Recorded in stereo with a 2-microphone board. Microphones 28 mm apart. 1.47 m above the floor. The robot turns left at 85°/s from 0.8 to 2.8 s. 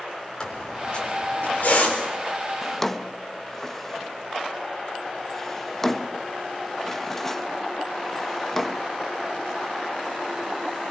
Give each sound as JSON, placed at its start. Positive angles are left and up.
{"t": 0.4, "sound": "a squeak", "side_deg": 25, "distance_m": 4.0}
{"t": 2.6, "sound": "a drawer", "side_deg": 5, "distance_m": 0.7}